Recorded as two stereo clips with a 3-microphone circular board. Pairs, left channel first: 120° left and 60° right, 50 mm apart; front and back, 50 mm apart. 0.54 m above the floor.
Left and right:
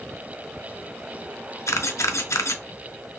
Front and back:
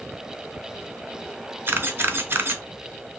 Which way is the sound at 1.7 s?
135° left.